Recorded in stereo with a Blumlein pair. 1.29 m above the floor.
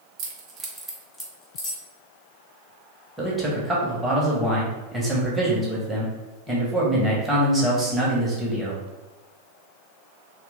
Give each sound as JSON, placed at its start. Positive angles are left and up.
{"t": 0.2, "sound": "keys jangling", "azimuth_deg": -35, "distance_m": 0.8}
{"t": 3.2, "sound": "a man speaking", "azimuth_deg": -5, "distance_m": 1.3}